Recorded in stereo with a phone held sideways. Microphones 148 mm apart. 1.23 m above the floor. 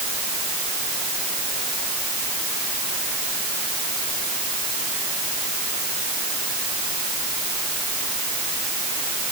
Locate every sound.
Only background noise.